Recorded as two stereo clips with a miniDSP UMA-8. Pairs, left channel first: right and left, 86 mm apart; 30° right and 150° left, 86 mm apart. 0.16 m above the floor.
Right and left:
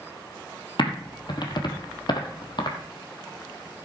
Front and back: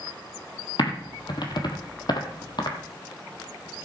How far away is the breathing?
I don't hear breathing.